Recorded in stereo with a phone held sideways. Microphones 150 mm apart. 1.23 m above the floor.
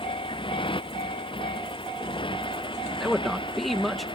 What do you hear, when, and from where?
0.0 s a motorcycle: 35° left (ahead or behind)
3.0 s a man speaking: centre (ahead or behind)